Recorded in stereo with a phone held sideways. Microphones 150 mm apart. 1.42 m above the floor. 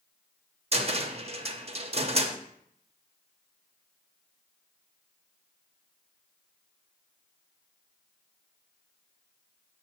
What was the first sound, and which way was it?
A cupboard door, 45° right (ahead or behind).